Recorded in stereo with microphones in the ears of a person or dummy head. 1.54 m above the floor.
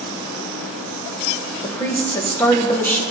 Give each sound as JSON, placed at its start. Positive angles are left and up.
{"t": 1.6, "sound": "a woman speaking", "side_deg": 10, "distance_m": 1.1}